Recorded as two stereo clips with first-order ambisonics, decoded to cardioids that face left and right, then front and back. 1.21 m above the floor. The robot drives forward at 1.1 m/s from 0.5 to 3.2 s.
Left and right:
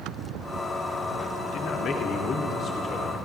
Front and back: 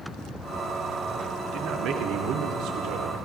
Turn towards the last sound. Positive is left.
turn(degrees=155)